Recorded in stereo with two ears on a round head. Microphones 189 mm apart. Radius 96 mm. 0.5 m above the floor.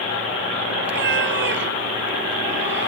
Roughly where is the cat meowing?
Right.